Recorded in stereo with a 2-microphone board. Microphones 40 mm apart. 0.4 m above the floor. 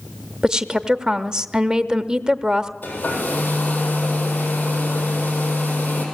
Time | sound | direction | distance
0.4 | a woman speaking | 20° right (ahead or behind) | 0.8 m
2.8 | a hair dryer | 50° left (ahead or behind) | 7 m